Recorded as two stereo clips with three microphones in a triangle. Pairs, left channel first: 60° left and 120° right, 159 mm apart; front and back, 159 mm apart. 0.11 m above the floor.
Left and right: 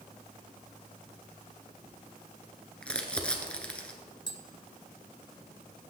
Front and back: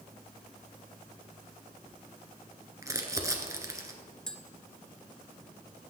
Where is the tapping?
80° left, 0.7 m.